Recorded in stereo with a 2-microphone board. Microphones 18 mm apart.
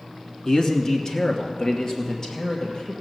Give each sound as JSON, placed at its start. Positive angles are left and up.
{"t": 0.5, "sound": "a man speaking", "side_deg": 35, "distance_m": 1.2}